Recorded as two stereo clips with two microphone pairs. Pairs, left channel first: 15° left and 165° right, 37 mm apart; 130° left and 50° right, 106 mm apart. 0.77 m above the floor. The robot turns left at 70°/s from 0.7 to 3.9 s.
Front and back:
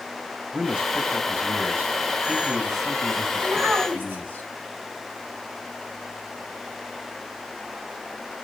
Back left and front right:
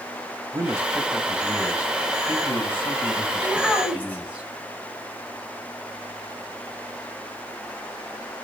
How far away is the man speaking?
About 1.6 m.